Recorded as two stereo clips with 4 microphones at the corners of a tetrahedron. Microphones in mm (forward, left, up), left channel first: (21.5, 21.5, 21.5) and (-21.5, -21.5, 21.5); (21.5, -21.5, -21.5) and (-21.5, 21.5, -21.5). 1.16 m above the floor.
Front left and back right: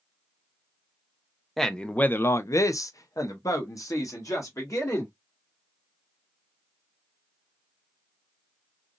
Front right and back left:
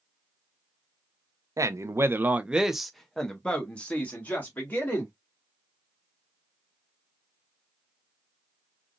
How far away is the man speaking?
About 0.6 m.